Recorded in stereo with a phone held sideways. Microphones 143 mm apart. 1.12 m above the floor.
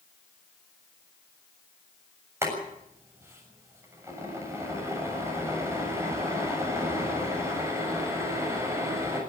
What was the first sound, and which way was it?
Boiling, 20° right (ahead or behind).